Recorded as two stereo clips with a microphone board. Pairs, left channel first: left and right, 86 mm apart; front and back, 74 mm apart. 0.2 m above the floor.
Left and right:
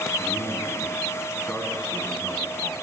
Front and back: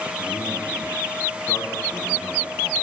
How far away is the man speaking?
About 2.5 m.